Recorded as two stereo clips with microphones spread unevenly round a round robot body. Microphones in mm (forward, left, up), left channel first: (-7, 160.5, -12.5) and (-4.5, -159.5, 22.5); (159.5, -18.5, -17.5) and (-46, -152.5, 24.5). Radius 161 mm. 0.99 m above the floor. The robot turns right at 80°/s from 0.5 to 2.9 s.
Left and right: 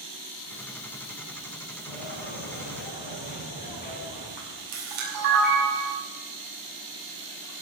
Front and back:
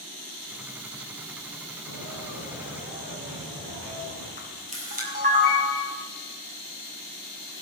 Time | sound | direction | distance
1.9 | footsteps | 65° left | 6 m
4.4 | a camera shutter | 90° right | 6 m